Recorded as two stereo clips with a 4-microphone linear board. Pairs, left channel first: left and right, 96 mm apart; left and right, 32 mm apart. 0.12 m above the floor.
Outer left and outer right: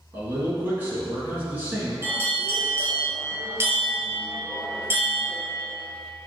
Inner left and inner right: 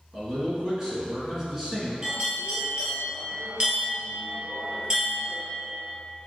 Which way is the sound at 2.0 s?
25° right (ahead or behind).